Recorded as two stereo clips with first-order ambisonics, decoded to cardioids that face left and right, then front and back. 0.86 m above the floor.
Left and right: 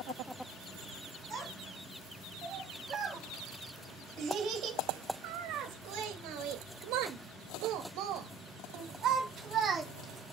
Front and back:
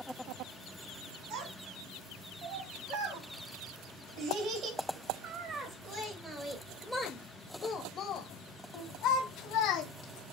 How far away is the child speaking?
About 3 m.